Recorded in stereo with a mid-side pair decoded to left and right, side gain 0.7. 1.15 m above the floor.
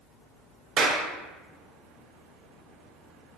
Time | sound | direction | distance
0.8 | a clap | 40° right | 0.7 m